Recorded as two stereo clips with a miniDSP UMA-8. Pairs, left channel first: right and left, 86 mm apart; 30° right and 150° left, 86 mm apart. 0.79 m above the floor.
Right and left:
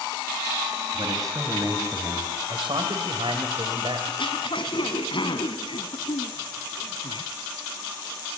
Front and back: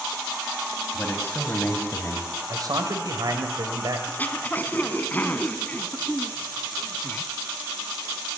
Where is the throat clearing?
100° right, 1.6 m.